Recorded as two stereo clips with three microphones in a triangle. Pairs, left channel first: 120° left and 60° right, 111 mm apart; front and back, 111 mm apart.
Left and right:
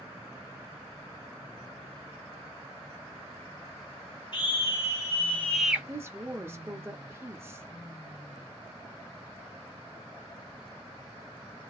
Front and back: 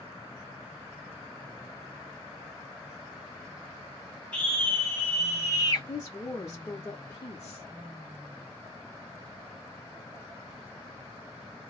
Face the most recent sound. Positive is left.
turn(degrees=-10)